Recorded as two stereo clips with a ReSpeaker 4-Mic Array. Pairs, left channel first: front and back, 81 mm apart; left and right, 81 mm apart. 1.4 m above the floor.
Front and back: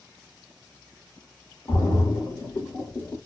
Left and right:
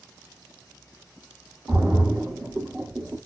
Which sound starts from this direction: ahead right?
A splash, at 1.7 s.